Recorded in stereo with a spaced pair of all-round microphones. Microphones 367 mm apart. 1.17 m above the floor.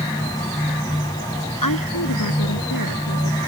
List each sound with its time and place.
0.0 s a fan: 10° left (ahead or behind)
1.6 s a woman speaking: 60° left (ahead or behind)